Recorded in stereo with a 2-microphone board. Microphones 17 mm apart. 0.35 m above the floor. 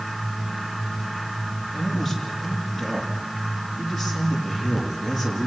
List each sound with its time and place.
1.7 s a man speaking: 5° right (ahead or behind), 8 m